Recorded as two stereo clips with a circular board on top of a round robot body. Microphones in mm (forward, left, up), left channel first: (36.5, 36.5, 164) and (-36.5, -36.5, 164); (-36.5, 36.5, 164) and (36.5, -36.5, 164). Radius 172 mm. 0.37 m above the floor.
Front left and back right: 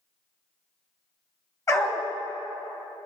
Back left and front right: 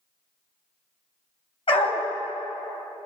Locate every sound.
1.7 s a dog barking: 100° left, 1.6 m